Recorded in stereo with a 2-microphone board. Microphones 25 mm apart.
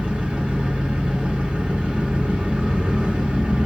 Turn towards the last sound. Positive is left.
turn(degrees=-60)  # may be behind; listen again after turning